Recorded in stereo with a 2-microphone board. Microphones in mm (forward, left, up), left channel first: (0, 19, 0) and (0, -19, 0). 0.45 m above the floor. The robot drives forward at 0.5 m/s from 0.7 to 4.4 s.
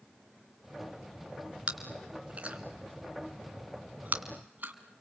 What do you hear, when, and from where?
1.7 s chewing: 30° right (ahead or behind), 3 m; by 4.7 s 50° right (ahead or behind), 1.8 m